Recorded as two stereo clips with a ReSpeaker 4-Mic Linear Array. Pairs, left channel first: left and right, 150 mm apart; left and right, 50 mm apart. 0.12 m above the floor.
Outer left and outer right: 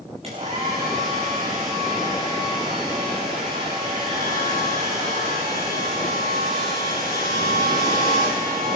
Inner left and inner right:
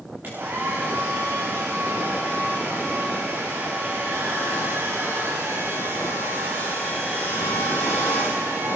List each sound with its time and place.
0.2 s a hair dryer: 40° right (ahead or behind), 7.5 m